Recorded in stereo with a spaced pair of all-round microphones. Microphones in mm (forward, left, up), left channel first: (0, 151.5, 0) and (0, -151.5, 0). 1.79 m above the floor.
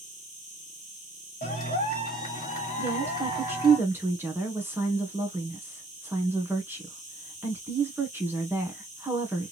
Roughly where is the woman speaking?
Centre.